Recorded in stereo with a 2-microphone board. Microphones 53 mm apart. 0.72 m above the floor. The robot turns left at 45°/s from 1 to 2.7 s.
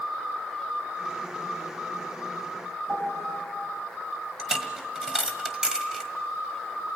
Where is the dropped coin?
15° right (ahead or behind), 1.5 m.